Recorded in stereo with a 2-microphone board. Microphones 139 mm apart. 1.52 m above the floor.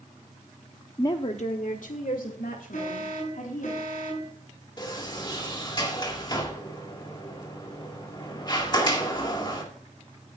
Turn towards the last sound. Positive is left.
turn(degrees=30)  # may be behind; listen again after turning